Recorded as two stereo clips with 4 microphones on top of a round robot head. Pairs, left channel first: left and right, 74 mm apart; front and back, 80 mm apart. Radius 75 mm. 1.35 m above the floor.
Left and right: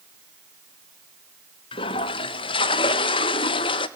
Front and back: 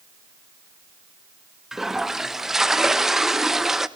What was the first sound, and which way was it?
A toilet flushing, 95° left.